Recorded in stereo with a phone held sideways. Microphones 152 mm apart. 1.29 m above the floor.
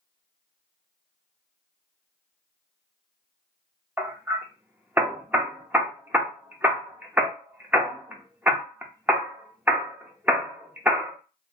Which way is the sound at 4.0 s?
10° right (ahead or behind).